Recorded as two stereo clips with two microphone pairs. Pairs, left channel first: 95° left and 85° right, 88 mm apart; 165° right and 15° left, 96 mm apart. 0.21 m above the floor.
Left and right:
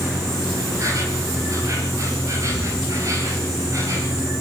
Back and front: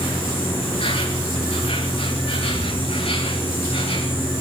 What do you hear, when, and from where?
0.0 s an insect: 140° right, 9 m